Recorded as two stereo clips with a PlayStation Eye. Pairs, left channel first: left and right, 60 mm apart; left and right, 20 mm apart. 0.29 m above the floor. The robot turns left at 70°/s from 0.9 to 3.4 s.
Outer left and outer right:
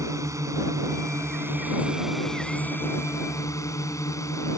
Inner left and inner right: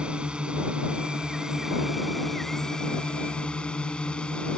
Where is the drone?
90° right; by 4.6 s 95° left.